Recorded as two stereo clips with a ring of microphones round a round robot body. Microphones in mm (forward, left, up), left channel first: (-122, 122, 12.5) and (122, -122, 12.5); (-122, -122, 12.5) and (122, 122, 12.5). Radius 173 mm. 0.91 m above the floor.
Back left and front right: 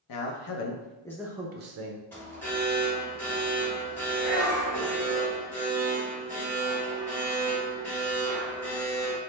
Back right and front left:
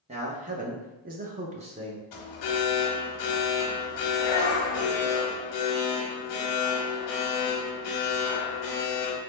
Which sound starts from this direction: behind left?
A man speaking, at 0.1 s.